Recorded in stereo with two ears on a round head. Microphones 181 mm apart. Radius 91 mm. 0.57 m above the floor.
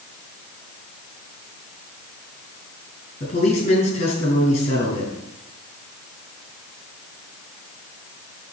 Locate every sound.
3.2 s a man speaking: 30° left (ahead or behind), 6 m